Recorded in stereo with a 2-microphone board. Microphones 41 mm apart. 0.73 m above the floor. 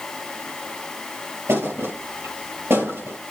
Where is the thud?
85° right, 5 m.